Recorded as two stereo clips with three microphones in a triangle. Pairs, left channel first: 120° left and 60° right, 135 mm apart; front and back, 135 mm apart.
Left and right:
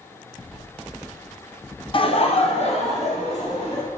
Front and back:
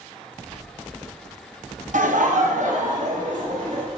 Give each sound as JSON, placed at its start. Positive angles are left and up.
{"t": 1.9, "sound": "laughter", "azimuth_deg": 165, "distance_m": 0.7}